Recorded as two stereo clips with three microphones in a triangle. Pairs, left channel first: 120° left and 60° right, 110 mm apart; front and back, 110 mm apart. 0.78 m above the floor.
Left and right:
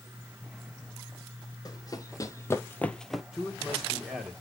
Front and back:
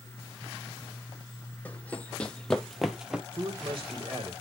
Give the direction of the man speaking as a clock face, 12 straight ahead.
5 o'clock.